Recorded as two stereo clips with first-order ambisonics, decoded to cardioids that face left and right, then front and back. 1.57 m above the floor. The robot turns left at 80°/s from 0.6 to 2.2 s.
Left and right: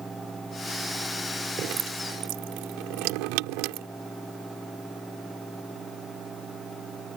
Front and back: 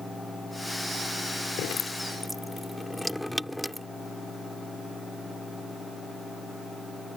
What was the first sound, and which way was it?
Dripping, 35° right.